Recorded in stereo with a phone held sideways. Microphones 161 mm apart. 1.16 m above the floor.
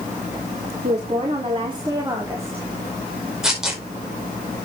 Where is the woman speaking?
45° right (ahead or behind), 3 m; by 2.7 s 10° right (ahead or behind), 3 m.